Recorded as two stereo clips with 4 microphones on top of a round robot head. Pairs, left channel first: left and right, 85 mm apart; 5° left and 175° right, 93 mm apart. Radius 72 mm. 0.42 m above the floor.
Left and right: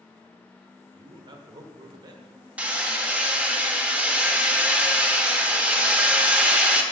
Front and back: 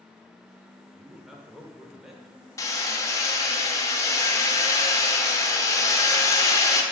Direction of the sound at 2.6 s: 25° right.